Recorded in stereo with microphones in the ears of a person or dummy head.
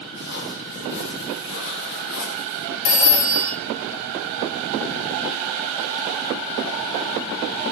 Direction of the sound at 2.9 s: 80° left.